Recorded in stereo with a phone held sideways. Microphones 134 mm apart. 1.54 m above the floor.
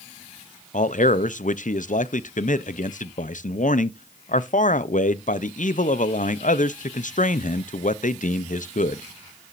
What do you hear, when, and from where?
0.7 s a man speaking: 70° left (ahead or behind), 0.6 m